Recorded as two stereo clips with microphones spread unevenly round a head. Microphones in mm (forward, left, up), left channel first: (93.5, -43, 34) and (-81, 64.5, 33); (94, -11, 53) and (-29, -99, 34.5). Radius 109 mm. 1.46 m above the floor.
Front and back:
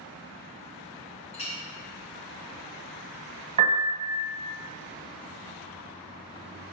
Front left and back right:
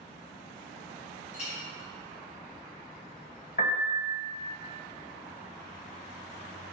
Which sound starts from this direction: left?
A piano, at 3.6 s.